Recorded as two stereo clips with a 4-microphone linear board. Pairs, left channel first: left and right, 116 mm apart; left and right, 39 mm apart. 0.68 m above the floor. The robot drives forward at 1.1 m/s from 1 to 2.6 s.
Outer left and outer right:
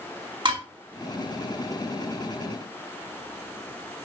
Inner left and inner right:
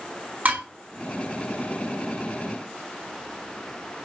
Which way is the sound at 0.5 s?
40° right (ahead or behind).